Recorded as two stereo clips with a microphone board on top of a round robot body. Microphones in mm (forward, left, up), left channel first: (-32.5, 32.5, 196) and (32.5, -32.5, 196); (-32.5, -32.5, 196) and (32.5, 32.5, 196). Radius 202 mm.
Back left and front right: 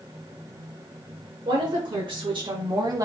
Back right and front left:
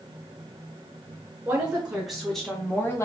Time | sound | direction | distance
1.4 | a woman speaking | 30° right | 2 m